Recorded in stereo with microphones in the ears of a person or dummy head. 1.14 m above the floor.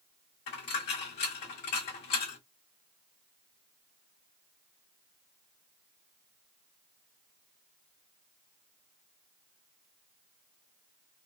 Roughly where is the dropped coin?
Left.